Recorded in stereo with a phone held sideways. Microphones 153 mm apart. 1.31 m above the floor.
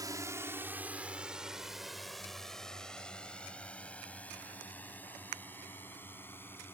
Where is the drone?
25° right (ahead or behind); by 6.7 s 15° left (ahead or behind).